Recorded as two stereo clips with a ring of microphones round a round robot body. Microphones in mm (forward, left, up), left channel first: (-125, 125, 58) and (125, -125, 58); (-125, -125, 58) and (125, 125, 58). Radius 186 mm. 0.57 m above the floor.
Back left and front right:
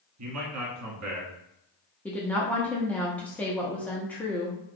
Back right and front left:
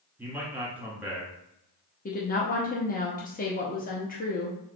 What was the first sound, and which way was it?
A man speaking, 40° right.